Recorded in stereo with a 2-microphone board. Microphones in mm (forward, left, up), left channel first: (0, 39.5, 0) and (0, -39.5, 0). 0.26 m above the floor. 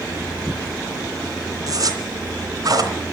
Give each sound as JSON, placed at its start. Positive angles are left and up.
{"t": 1.7, "sound": "a zipper", "side_deg": -55, "distance_m": 2.5}